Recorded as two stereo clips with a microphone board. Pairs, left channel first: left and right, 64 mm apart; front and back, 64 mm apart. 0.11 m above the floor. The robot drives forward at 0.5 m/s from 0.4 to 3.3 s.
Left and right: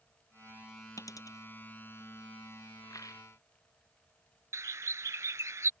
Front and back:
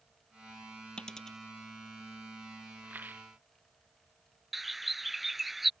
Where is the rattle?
120° left.